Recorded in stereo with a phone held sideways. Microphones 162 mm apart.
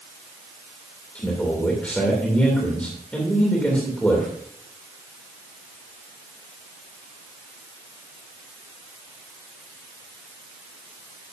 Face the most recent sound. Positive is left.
turn(degrees=10)  # may be behind; listen again after turning